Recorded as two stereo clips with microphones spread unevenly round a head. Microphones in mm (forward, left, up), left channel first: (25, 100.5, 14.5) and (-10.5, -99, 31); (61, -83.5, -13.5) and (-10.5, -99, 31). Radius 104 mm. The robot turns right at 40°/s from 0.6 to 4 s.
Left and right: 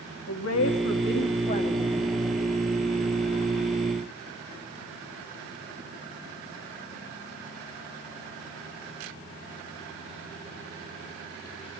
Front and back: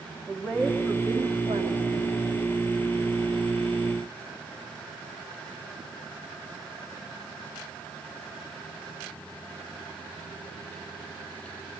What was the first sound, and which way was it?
A woman speaking, 95° left.